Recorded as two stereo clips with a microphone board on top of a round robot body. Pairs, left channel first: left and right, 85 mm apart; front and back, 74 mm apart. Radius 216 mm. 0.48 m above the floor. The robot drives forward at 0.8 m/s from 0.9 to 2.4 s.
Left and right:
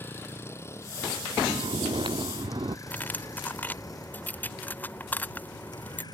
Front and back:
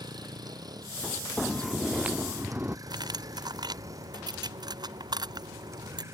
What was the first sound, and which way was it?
A vehicle, 155° left.